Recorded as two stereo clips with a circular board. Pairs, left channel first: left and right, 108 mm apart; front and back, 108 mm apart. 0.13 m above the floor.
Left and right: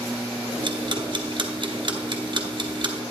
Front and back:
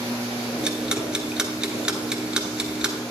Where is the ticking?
100° right, 1.2 m.